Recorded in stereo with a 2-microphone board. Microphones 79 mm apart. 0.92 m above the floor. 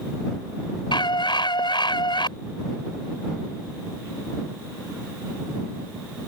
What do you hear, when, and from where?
0.9 s a scream: 80° left